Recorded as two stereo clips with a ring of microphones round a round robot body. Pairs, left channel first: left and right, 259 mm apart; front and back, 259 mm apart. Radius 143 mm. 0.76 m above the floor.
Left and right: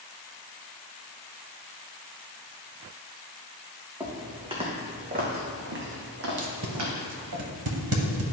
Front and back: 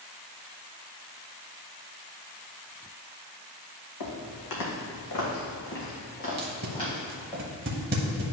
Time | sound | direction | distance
4.0 | footsteps | 10° right | 2 m
6.4 | tape being pulled | 125° right | 0.8 m